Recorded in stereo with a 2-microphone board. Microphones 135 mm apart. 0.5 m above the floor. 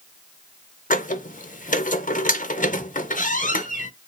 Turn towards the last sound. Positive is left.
turn(degrees=75)  # may be behind; listen again after turning